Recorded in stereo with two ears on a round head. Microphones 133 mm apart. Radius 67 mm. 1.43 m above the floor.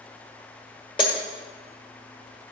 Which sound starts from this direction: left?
Breaking glass, at 1.0 s.